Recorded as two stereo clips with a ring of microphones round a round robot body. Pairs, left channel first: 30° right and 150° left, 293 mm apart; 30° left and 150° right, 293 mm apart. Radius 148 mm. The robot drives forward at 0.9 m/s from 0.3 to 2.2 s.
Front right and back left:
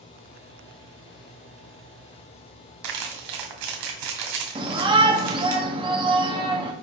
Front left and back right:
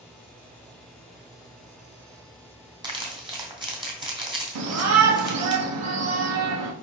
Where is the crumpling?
135° left, 2 m.